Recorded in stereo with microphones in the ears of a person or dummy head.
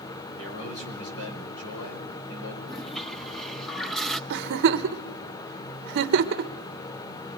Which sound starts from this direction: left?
A man speaking, at 0.4 s.